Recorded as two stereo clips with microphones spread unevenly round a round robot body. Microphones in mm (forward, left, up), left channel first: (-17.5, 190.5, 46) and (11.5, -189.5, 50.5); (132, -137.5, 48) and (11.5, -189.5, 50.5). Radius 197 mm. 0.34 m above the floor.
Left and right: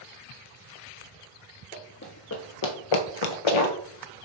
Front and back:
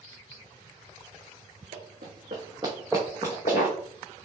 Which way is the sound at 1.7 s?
165° left.